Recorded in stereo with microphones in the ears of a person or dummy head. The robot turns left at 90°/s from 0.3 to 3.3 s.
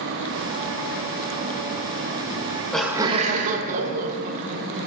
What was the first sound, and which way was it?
Laughter, 40° left.